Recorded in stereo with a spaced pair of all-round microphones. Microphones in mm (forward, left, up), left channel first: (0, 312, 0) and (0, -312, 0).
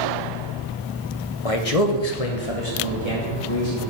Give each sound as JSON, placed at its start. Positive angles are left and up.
{"t": 1.4, "sound": "a man speaking", "side_deg": 55, "distance_m": 0.9}